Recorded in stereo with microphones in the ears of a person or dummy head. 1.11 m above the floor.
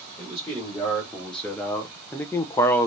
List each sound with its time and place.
0.2 s a man speaking: centre (ahead or behind), 1.5 m; by 2.9 s 10° left (ahead or behind), 0.7 m